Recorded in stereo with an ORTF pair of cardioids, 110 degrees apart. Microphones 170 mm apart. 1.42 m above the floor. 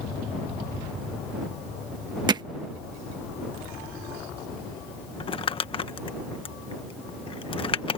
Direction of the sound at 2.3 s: 25° right.